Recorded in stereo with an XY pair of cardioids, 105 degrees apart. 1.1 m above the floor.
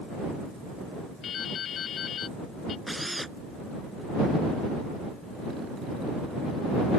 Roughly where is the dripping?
Ahead left.